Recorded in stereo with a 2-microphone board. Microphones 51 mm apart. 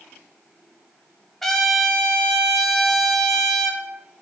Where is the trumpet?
5° left (ahead or behind), 1.0 m.